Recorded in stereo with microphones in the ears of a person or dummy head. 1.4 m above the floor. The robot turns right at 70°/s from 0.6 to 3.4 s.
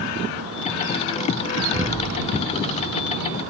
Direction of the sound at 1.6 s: 50° right (ahead or behind).